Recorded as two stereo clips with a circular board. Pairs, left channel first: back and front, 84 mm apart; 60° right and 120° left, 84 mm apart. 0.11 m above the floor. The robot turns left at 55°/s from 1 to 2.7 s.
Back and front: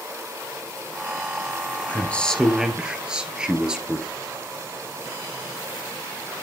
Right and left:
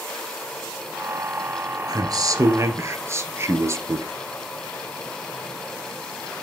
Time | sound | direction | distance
1.9 | a man speaking | 120° left | 2.0 m